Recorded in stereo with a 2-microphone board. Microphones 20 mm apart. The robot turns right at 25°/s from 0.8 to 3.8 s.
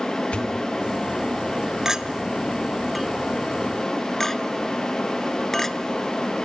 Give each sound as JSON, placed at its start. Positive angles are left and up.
{"t": 0.3, "sound": "a pop", "side_deg": 70, "distance_m": 2.0}
{"t": 1.9, "sound": "a clink", "side_deg": -30, "distance_m": 0.8}